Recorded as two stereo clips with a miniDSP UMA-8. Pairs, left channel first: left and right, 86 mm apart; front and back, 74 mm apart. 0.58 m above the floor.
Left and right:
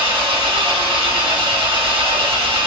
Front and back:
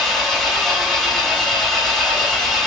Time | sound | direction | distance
0.0 | an engine running | 90° right | 1.0 m